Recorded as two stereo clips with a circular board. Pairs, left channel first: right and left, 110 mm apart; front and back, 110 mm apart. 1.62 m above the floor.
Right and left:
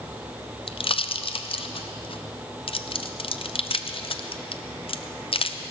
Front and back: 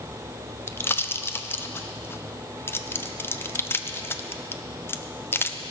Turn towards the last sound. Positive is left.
turn(degrees=-65)